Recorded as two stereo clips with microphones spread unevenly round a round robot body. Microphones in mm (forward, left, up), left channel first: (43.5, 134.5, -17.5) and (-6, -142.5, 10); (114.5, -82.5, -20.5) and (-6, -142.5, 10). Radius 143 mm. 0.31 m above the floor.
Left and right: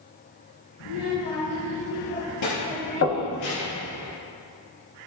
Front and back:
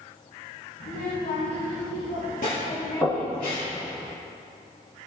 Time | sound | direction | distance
0.8 | a child speaking | 70° left | 3.5 m
3.0 | knocking | 100° left | 1.8 m